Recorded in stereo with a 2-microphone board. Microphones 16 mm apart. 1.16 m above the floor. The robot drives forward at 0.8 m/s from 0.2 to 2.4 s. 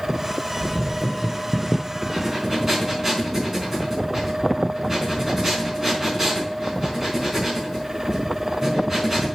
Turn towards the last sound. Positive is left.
turn(degrees=-20)  # may be behind; listen again after turning